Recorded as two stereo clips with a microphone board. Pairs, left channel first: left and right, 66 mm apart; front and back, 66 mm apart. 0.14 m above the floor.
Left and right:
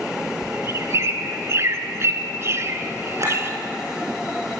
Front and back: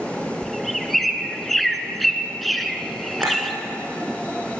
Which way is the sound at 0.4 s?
90° right.